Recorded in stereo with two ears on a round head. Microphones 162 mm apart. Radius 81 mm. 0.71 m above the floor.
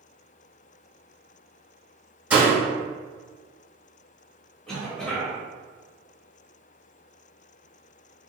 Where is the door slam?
10° right (ahead or behind), 1.9 m.